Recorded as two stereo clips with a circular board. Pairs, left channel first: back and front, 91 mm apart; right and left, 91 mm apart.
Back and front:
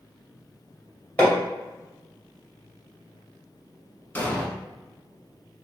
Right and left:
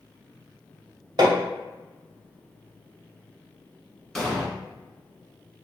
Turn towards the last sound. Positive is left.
turn(degrees=-165)